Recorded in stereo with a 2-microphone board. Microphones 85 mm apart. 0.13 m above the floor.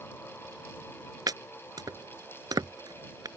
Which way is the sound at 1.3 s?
50° right (ahead or behind).